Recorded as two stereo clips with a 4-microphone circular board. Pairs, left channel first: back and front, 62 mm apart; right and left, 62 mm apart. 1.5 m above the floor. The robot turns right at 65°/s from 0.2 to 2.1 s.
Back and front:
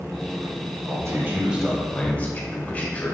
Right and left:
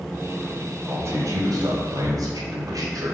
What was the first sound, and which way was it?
A man speaking, 35° left.